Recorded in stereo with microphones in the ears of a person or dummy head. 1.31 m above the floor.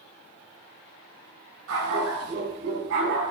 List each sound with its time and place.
1.7 s a dog barking: 75° right (ahead or behind), 3.5 m; by 3.3 s 70° right (ahead or behind), 2.5 m